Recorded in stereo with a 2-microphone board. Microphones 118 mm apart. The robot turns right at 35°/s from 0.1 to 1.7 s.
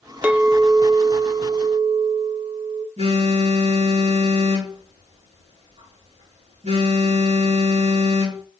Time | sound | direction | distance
0.2 | a clink | 165° right | 0.6 m
3.0 | a phone buzzing | 70° right (ahead or behind) | 4.5 m